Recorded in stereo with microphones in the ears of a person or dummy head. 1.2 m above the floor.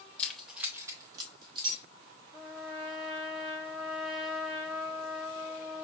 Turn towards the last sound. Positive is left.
turn(degrees=-30)  # may be behind; listen again after turning